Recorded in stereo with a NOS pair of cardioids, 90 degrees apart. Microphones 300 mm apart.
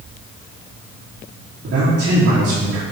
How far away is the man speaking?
About 4 m.